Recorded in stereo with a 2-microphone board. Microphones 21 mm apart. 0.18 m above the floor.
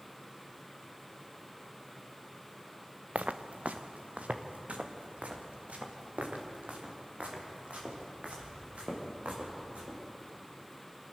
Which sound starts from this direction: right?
Footsteps, at 3.1 s.